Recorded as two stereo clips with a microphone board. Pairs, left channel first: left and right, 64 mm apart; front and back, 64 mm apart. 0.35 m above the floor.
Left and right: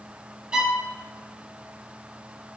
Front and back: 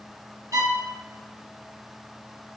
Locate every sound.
0.5 s a violin: 165° right, 0.9 m